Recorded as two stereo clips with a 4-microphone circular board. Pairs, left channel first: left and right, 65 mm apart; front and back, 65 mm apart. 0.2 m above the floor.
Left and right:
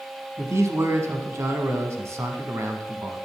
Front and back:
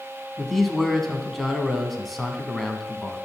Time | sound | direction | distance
0.4 | a man speaking | 85° right | 1.2 m